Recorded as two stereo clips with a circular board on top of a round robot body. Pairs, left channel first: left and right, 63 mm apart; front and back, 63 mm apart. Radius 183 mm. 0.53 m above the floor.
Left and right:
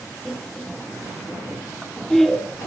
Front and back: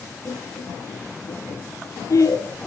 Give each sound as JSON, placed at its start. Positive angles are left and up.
{"t": 0.2, "sound": "laughter", "azimuth_deg": 5, "distance_m": 1.9}